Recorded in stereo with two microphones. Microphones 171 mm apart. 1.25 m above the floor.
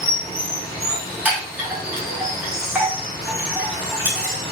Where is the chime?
10° right (ahead or behind), 1.1 m.